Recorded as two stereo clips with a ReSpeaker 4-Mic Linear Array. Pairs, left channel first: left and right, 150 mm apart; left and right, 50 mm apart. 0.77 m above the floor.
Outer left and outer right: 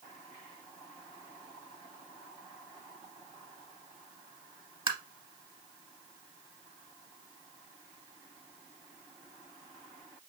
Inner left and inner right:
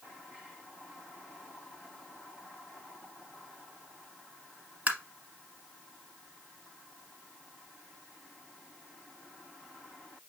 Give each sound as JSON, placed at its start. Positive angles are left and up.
{"t": 4.9, "sound": "tapping", "side_deg": -35, "distance_m": 1.3}